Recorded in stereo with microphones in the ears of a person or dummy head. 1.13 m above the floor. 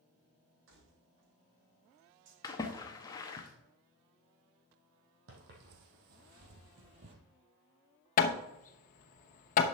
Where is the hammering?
50° left (ahead or behind), 0.9 m.